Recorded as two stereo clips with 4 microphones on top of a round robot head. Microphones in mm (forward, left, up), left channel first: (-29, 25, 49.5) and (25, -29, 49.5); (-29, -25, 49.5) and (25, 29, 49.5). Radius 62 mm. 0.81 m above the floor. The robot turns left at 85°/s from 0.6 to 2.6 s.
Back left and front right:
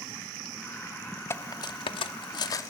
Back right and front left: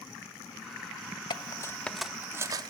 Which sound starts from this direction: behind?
Cutlery clinking, at 1.3 s.